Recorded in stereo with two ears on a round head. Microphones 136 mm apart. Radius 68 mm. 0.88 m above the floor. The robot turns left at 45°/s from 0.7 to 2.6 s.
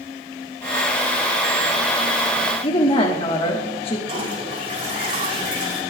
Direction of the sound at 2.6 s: 35° left (ahead or behind).